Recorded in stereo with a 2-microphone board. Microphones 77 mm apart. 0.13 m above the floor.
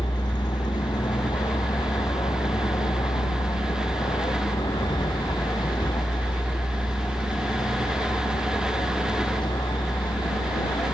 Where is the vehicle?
65° left (ahead or behind); by 10.9 s 75° left (ahead or behind).